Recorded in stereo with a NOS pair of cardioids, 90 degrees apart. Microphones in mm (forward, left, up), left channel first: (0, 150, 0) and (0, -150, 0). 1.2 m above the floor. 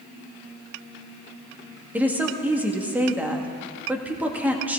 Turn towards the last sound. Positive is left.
turn(degrees=-5)